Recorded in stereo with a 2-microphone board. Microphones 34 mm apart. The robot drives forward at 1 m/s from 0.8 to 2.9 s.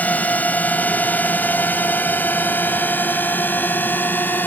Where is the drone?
50° left (ahead or behind); by 4.5 s 65° left (ahead or behind).